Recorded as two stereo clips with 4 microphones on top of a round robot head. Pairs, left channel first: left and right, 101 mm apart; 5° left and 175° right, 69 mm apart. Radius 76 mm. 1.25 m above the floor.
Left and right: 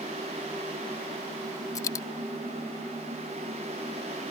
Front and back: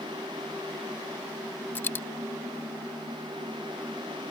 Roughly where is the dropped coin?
Ahead left.